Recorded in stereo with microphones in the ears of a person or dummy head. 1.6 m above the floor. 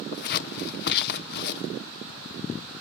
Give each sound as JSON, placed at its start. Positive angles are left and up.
{"t": 0.1, "sound": "scissors", "side_deg": 55, "distance_m": 0.8}